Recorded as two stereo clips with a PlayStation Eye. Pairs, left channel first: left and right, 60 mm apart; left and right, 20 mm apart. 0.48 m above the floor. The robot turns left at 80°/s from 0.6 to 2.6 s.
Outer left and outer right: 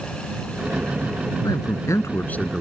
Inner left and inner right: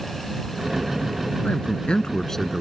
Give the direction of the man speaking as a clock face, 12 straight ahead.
9 o'clock.